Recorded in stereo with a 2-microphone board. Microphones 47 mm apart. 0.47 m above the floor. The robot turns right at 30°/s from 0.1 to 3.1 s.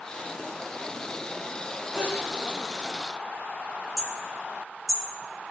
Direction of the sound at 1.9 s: 60° right (ahead or behind).